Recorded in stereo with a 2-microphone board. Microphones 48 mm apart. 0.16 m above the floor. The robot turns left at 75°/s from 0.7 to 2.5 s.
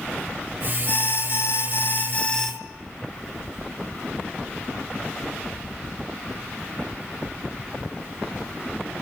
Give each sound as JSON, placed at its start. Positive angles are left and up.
{"t": 0.9, "sound": "an alarm", "azimuth_deg": 135, "distance_m": 1.5}